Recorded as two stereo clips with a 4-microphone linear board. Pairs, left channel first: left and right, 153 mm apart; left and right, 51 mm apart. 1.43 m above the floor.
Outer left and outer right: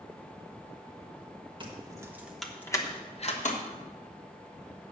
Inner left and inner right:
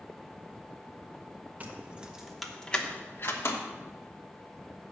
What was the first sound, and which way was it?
Keys jangling, 30° right (ahead or behind).